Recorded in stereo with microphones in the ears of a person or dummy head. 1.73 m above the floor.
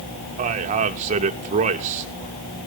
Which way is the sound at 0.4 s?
35° right (ahead or behind).